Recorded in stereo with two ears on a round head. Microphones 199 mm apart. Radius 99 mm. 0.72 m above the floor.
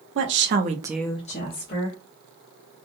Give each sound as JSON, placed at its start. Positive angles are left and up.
{"t": 0.1, "sound": "a woman speaking", "side_deg": -60, "distance_m": 1.4}